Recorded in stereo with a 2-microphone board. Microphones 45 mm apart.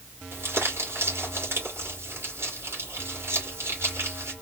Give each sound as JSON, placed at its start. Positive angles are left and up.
{"t": 0.3, "sound": "crumpling", "side_deg": -65, "distance_m": 2.5}